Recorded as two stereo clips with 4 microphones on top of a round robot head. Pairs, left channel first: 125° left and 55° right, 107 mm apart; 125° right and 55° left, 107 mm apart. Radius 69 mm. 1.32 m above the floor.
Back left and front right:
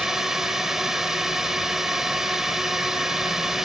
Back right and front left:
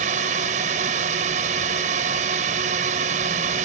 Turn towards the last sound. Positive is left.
turn(degrees=35)